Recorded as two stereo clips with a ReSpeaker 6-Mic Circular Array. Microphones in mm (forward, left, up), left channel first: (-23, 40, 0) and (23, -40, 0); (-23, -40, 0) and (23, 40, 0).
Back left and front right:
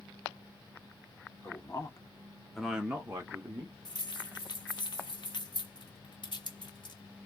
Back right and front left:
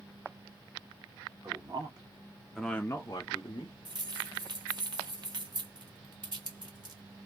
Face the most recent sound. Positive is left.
turn(degrees=90)